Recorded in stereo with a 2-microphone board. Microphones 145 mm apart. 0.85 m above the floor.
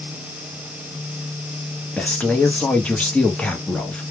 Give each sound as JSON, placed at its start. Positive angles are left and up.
{"t": 2.0, "sound": "a man speaking", "side_deg": 10, "distance_m": 0.8}